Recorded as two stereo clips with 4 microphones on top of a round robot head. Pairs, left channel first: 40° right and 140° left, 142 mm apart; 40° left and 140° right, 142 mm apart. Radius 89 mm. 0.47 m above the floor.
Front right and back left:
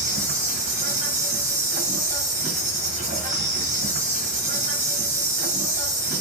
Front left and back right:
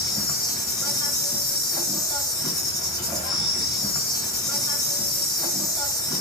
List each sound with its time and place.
0.0 s an insect: 105° left, 1.6 m